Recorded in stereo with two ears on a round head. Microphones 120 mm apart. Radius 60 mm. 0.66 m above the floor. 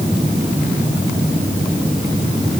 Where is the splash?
I don't hear a splash.